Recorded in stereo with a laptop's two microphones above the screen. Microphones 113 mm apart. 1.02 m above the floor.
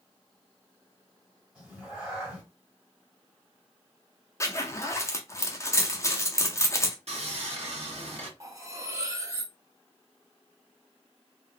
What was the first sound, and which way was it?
A cat meowing, 10° right (ahead or behind).